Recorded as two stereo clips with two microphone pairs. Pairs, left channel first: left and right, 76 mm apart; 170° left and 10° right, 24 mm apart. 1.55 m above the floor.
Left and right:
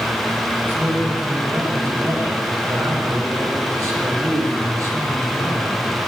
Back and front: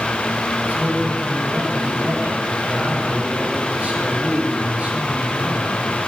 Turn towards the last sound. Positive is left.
turn(degrees=-45)